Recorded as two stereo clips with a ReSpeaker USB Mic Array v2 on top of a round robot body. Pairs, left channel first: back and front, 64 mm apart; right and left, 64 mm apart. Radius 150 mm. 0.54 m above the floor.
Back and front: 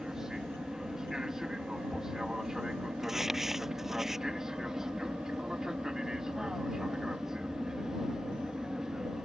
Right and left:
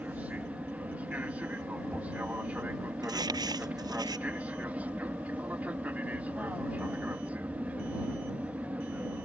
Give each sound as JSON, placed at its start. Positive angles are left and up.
{"t": 0.0, "sound": "an aircraft", "azimuth_deg": 70}
{"t": 3.0, "sound": "crumpling", "azimuth_deg": 85}